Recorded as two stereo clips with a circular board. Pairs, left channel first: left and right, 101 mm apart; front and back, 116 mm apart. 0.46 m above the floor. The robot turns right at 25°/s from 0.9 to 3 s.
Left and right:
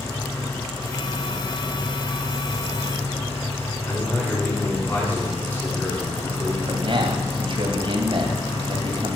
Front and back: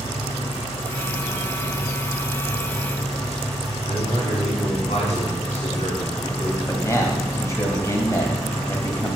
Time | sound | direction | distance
0.0 | an engine running | 30° left | 4.5 m
3.9 | a man speaking | 20° left | 5 m
6.7 | a man speaking | 65° right | 2.5 m